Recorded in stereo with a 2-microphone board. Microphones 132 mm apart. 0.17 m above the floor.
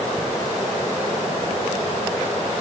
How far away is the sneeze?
I don't hear a sneeze.